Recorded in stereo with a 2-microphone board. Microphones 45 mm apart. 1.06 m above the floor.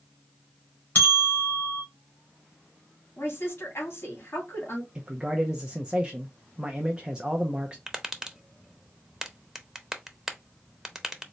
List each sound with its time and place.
0.9 s a bell: 40° left (ahead or behind), 2.5 m
3.2 s a woman speaking: 50° left (ahead or behind), 2.5 m
5.0 s a man speaking: 20° right (ahead or behind), 0.6 m
7.9 s tapping: 10° right (ahead or behind), 0.6 m